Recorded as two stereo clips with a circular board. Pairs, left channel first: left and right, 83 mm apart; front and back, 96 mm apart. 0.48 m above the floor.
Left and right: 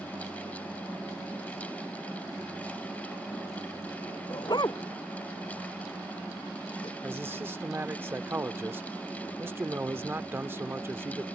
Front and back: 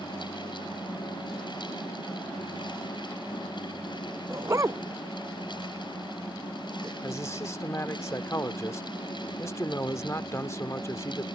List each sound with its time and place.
4.3 s a dog barking: 125° left; by 6.9 s 120° left
7.0 s a man speaking: 45° right